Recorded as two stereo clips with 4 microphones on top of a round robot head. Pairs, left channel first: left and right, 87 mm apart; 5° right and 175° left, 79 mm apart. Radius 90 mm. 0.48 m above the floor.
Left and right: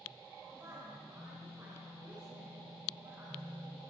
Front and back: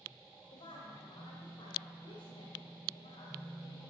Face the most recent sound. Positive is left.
turn(degrees=-25)